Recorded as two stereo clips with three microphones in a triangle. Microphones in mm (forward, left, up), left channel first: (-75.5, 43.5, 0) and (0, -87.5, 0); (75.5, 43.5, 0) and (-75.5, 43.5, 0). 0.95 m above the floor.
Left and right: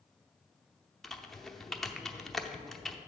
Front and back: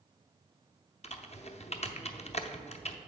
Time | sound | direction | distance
1.0 | typing on a keyboard | 30° left | 0.6 m